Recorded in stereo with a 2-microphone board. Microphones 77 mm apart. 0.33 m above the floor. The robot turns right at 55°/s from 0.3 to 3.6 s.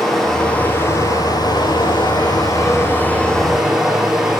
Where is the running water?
5° left, 6 m; by 4.4 s 175° right, 6 m.